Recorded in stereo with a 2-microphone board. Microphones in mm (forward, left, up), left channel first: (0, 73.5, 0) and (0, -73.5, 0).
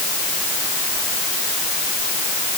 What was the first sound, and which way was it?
Only background noise.